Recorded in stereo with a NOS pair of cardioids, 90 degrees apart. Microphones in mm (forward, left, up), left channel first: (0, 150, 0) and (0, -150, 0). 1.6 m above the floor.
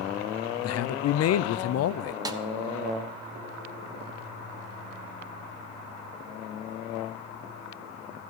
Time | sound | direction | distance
0.6 | a man speaking | 55° left | 0.6 m
2.2 | a snare drum | 15° right | 1.0 m